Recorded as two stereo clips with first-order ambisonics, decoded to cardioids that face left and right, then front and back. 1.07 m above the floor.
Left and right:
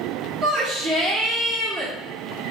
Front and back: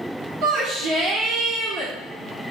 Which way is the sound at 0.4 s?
150° right.